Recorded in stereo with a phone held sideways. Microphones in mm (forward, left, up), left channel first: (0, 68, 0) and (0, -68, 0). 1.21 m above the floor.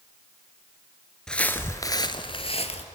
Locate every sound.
1.3 s footsteps: 5° left (ahead or behind), 1.3 m; by 2.9 s 50° left (ahead or behind), 1.7 m